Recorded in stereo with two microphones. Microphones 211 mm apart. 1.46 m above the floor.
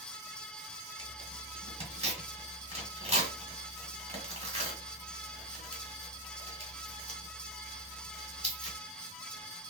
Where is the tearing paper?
30° right (ahead or behind), 1.5 m.